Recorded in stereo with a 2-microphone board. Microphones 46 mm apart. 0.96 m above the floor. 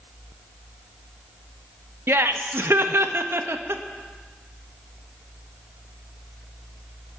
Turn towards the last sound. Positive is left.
turn(degrees=-65)  # may be behind; listen again after turning